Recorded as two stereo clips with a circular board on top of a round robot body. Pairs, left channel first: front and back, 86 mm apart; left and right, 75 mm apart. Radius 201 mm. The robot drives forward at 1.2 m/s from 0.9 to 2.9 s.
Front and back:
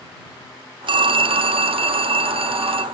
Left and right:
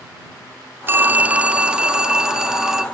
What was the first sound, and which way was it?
A phone ringing, 155° right.